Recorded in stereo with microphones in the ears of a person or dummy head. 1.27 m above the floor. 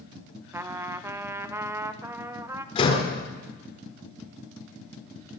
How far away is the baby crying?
No baby crying in this recording.